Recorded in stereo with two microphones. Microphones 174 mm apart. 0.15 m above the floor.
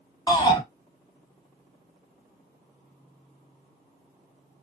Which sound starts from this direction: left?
A shout, at 0.3 s.